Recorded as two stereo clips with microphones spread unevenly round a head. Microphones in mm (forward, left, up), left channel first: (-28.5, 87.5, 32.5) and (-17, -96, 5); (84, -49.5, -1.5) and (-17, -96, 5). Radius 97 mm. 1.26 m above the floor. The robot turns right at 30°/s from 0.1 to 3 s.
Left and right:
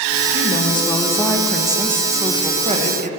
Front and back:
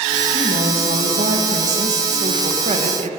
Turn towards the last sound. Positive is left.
turn(degrees=-130)